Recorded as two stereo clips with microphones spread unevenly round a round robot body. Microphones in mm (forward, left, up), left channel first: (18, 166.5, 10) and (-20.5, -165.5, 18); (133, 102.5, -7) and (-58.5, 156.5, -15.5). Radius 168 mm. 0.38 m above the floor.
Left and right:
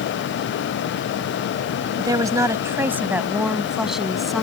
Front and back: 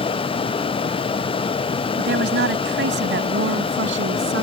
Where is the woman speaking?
175° right; by 4.4 s 175° left.